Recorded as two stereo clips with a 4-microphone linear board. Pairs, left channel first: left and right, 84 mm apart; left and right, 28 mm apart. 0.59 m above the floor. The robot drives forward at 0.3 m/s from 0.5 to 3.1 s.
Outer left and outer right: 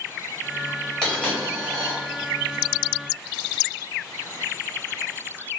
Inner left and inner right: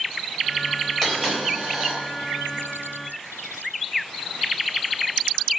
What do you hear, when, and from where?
1.0 s a dropped coin: 10° left (ahead or behind), 1.6 m